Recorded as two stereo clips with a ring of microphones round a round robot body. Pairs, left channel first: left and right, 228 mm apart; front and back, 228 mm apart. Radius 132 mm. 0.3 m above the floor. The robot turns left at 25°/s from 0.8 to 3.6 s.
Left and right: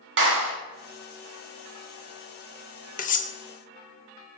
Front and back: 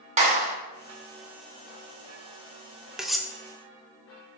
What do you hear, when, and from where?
0.2 s a clap: 120° right, 2 m
3.0 s cutlery clinking: 95° left, 0.6 m; by 3.3 s 85° left, 0.6 m